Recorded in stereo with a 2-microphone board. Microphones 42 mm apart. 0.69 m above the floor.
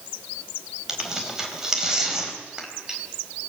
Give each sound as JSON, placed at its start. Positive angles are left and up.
{"t": 0.9, "sound": "tearing paper", "side_deg": -15, "distance_m": 4.0}